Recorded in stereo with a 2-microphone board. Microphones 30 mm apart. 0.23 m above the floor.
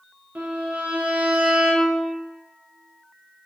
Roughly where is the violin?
Right.